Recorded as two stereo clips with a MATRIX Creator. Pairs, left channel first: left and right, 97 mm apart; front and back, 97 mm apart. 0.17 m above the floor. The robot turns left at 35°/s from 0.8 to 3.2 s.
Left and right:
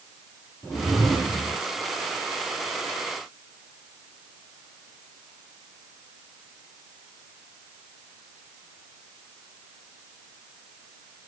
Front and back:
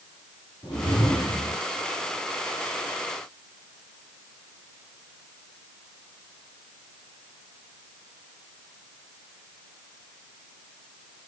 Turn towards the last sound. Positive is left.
turn(degrees=-55)